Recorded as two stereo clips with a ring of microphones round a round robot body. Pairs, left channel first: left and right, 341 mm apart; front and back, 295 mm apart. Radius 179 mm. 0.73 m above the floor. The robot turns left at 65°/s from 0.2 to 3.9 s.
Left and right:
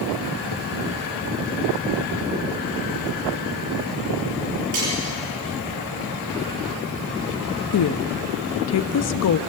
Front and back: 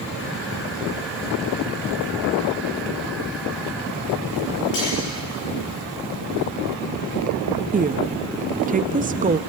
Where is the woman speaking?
120° left, 0.7 m.